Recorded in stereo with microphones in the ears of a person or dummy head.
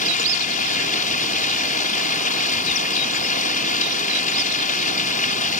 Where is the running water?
40° left (ahead or behind).